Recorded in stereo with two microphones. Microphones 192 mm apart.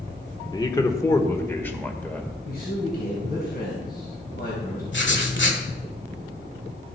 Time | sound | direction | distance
0.5 | a man speaking | 20° left (ahead or behind) | 1.1 m
2.4 | a man speaking | 55° left (ahead or behind) | 3 m
4.9 | writing | 70° left (ahead or behind) | 1.6 m